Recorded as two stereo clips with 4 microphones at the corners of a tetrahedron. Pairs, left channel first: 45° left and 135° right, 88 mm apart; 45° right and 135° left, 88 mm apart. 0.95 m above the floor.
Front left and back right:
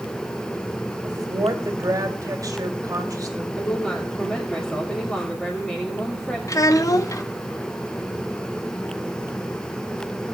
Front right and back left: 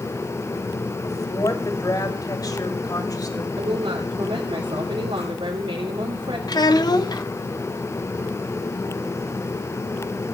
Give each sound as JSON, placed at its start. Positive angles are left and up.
{"t": 1.0, "sound": "a woman speaking", "azimuth_deg": -90, "distance_m": 2.0}
{"t": 3.6, "sound": "a woman speaking", "azimuth_deg": 125, "distance_m": 2.5}
{"t": 6.5, "sound": "a child speaking", "azimuth_deg": -5, "distance_m": 0.9}